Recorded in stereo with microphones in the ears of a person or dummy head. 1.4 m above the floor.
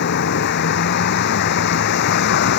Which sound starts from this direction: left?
A vehicle, at 0.0 s.